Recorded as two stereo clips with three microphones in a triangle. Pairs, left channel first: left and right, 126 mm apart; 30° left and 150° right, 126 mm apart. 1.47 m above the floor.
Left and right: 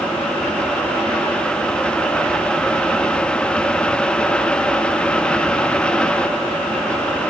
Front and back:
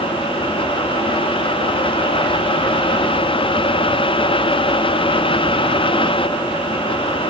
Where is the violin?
I don't hear a violin.